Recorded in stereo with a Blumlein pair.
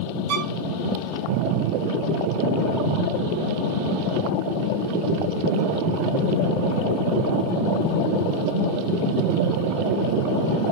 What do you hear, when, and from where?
0.3 s a violin: 45° right, 0.9 m